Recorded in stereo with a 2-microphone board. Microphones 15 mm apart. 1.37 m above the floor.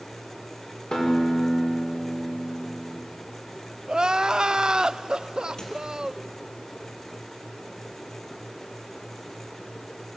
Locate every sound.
0.9 s a guitar: 60° left (ahead or behind), 5 m
3.9 s crying: 70° right (ahead or behind), 0.5 m
5.6 s a squeak: 60° left (ahead or behind), 5 m